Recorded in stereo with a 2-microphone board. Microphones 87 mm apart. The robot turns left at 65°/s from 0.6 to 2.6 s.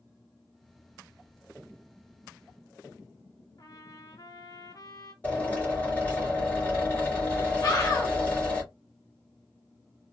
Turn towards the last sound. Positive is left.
turn(degrees=40)  # may be behind; listen again after turning